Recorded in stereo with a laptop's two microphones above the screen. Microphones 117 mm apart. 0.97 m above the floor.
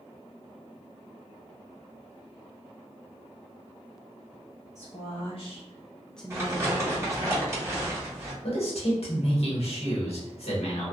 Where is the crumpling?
25° right (ahead or behind), 1.4 m.